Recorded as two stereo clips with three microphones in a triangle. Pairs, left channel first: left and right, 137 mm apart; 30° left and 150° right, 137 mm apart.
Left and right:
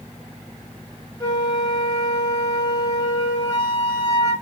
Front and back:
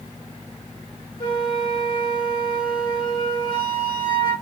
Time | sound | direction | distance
1.2 | a flute | 50° left | 1.4 m